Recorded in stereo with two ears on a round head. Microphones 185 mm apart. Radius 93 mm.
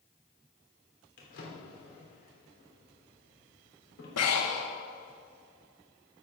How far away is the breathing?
About 1.3 m.